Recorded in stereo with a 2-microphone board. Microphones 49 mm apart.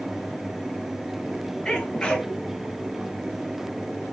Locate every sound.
1.6 s a sneeze: 20° left (ahead or behind), 1.8 m